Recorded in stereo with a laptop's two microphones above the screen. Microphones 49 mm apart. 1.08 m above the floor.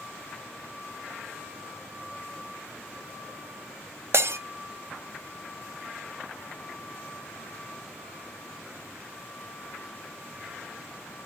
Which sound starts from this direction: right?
Breaking glass, at 4.1 s.